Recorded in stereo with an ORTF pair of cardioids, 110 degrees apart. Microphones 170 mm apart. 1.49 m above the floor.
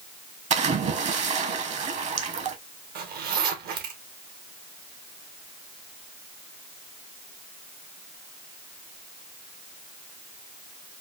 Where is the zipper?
65° right, 1.2 m.